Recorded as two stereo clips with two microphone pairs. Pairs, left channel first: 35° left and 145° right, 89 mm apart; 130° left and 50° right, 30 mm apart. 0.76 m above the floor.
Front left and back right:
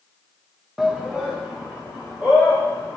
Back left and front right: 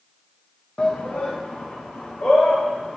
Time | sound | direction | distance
0.8 | a shout | 125° left | 0.5 m